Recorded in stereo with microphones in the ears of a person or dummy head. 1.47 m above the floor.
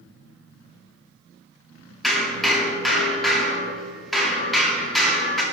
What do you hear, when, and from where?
2.0 s hammering: 5° right (ahead or behind), 2 m